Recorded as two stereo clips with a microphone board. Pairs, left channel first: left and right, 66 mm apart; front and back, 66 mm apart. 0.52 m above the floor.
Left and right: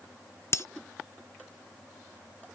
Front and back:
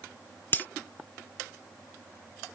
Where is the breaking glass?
55° left.